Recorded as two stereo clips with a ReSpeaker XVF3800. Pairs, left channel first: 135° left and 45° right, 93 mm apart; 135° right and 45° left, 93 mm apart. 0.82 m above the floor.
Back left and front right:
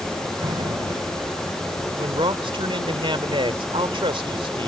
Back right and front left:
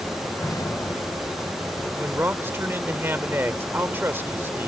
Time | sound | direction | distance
0.4 | an explosion | 80° right | ?
2.0 | a man speaking | 20° right | ?